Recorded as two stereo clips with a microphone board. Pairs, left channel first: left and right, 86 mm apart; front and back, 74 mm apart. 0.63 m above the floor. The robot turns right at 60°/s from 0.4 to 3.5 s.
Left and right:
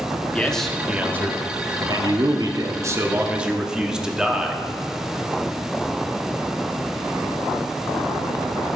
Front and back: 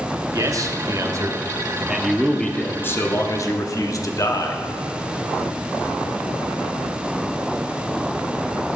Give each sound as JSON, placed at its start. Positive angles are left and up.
{"t": 0.3, "sound": "a man speaking", "azimuth_deg": 160, "distance_m": 0.8}